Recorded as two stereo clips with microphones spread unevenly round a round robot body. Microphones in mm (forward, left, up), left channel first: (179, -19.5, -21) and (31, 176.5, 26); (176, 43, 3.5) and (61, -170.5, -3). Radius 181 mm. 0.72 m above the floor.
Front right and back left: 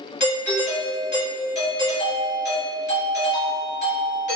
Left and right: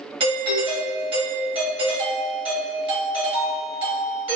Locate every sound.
0.2 s a doorbell: 65° right, 1.5 m